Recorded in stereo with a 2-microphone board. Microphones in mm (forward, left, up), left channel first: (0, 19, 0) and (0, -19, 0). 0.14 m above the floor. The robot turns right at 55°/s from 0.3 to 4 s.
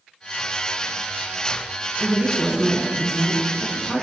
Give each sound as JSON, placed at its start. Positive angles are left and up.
{"t": 2.0, "sound": "a woman speaking", "side_deg": -20, "distance_m": 1.0}